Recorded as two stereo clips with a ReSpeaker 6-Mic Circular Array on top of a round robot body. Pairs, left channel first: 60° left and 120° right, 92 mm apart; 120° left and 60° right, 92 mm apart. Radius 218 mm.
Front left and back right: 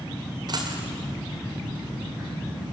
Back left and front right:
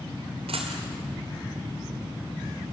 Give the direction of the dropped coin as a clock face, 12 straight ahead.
3 o'clock.